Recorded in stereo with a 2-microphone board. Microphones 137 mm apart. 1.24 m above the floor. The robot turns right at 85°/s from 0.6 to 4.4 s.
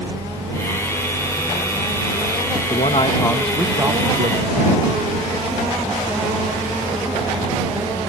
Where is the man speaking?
110° left; by 4.8 s 105° right.